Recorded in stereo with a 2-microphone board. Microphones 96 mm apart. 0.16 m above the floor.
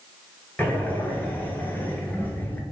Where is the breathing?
20° left (ahead or behind), 0.6 m.